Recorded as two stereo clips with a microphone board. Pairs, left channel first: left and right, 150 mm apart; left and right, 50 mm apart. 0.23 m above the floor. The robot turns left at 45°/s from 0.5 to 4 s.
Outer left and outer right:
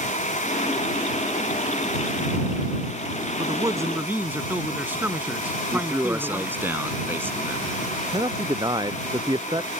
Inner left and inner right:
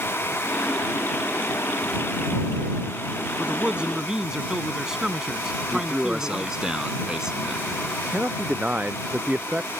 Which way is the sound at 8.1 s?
30° right (ahead or behind).